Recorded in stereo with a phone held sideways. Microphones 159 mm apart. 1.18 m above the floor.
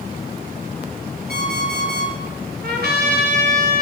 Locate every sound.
1.3 s an alarm clock: 85° right, 9.5 m
2.6 s a trumpet: 85° right, 3 m